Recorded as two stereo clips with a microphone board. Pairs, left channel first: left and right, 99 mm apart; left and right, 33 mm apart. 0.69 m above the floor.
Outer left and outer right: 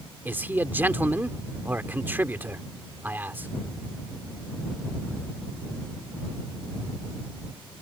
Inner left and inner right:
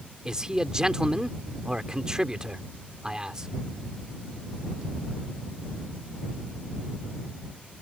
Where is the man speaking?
20° right (ahead or behind).